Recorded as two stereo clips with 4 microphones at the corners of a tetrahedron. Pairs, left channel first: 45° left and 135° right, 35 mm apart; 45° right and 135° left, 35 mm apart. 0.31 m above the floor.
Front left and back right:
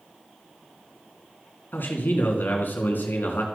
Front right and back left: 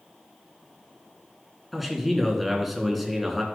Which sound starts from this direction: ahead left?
A man speaking, at 1.7 s.